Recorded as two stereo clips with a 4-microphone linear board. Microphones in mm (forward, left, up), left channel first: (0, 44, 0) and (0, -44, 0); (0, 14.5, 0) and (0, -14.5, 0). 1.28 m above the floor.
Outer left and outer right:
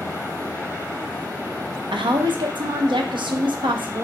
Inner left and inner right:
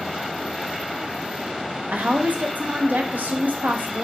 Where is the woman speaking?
65° right (ahead or behind), 0.7 m.